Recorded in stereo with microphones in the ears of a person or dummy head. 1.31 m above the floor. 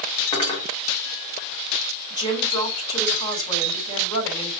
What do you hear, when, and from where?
0.3 s cutlery clinking: 25° left (ahead or behind), 1.3 m
2.1 s a woman speaking: 25° left (ahead or behind), 3 m